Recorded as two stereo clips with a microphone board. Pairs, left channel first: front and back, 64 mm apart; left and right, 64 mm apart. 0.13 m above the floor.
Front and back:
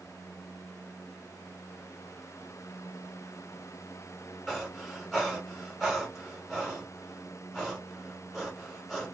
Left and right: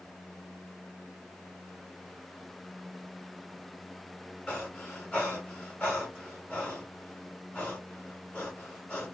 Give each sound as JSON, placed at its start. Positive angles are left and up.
{"t": 4.5, "sound": "breathing", "azimuth_deg": 90, "distance_m": 1.5}